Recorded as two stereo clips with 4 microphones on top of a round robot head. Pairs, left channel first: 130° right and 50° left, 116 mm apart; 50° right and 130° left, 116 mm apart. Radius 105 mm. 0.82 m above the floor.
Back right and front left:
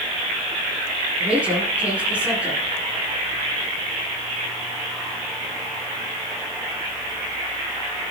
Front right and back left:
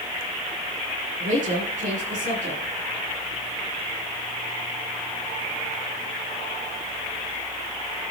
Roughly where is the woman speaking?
Behind left.